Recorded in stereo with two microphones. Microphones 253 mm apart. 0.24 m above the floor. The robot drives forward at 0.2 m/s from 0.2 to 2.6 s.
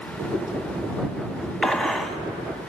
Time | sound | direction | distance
1.6 | a gunshot | centre (ahead or behind) | 0.5 m